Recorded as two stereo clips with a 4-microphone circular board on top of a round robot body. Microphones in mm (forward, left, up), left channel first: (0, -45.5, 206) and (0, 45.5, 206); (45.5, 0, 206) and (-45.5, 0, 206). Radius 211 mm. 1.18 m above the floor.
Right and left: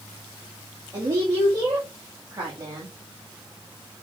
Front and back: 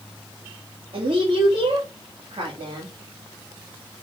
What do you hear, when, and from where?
0.9 s a woman speaking: 145° left, 2.5 m